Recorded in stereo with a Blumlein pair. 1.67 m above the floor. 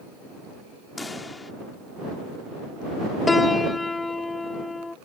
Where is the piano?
10° left.